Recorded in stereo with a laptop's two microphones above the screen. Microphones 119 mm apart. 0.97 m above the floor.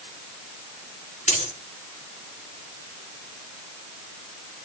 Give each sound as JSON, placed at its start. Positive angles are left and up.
{"t": 1.3, "sound": "a dropped coin", "side_deg": 75, "distance_m": 4.5}